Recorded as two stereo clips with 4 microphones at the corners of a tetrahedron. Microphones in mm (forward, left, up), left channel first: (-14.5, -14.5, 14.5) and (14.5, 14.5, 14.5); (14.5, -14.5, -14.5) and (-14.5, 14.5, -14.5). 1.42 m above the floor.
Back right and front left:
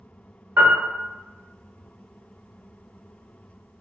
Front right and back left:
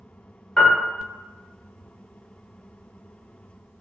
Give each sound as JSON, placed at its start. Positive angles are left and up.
{"t": 0.6, "sound": "a piano", "azimuth_deg": 30, "distance_m": 0.7}